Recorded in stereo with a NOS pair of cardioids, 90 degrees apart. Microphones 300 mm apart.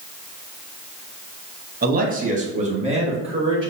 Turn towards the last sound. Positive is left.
turn(degrees=-15)